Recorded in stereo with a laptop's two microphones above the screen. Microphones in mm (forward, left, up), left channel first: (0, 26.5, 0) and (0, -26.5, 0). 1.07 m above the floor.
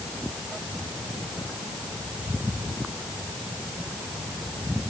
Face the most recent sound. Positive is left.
No sound to turn to.